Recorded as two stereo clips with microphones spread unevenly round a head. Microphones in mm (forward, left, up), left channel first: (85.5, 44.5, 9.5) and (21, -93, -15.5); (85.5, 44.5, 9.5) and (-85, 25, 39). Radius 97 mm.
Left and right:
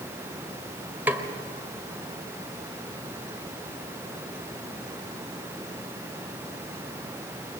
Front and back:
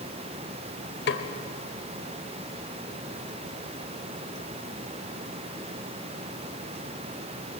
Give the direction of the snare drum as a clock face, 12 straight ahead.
1 o'clock.